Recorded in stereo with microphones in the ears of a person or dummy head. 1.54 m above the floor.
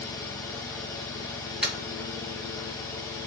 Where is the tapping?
10° right (ahead or behind), 1.4 m.